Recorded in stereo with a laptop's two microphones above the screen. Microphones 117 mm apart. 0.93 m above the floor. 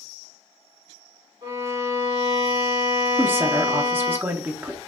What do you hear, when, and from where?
1.4 s a violin: 60° right (ahead or behind), 2 m
3.2 s a woman speaking: 20° right (ahead or behind), 0.7 m